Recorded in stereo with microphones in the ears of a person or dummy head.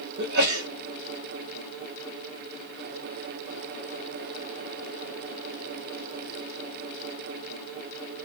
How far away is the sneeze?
About 0.8 m.